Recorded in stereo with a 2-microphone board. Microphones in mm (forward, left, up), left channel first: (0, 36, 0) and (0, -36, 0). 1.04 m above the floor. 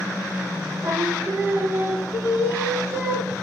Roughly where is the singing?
Right.